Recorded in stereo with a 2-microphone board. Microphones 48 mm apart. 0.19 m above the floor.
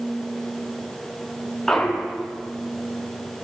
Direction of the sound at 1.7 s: 5° left (ahead or behind).